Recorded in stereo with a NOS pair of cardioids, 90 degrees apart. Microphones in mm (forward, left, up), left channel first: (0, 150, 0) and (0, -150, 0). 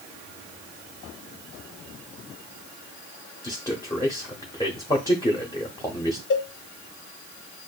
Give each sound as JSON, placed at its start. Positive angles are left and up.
{"t": 3.4, "sound": "a man speaking", "azimuth_deg": 10, "distance_m": 1.0}
{"t": 6.3, "sound": "a cowbell", "azimuth_deg": 40, "distance_m": 0.7}